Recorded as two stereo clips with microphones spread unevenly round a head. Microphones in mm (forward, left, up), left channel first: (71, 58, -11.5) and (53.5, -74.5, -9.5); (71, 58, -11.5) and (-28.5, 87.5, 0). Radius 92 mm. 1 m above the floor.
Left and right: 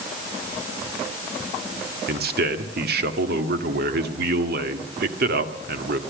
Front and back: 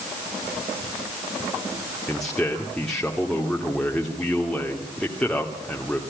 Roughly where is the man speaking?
Right.